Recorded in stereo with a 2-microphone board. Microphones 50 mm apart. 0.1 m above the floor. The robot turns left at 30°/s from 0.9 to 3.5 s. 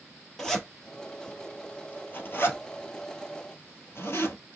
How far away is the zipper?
About 1.3 m.